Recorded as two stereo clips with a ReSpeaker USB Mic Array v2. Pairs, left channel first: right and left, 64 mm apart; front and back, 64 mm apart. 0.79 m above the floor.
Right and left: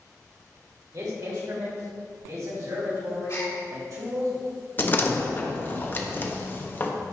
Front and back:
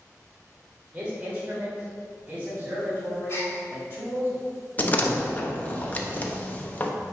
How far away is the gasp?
About 2.5 m.